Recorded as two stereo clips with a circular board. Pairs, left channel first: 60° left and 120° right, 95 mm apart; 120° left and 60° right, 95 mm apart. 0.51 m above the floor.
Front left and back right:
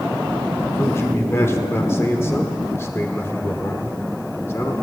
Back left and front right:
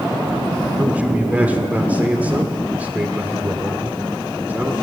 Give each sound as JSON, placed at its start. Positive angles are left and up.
{"t": 0.8, "sound": "a man speaking", "azimuth_deg": 10, "distance_m": 1.2}